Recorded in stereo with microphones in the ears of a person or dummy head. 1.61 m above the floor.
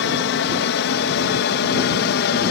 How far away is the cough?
I don't hear a cough.